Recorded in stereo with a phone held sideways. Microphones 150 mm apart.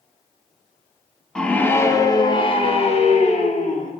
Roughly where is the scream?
Centre.